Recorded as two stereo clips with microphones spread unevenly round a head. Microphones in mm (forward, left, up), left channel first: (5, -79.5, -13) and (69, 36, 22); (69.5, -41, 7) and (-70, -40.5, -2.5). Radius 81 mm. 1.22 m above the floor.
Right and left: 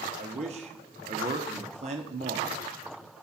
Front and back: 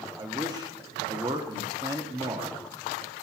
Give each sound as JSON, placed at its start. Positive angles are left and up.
{"t": 0.2, "sound": "a man speaking", "azimuth_deg": 115, "distance_m": 0.8}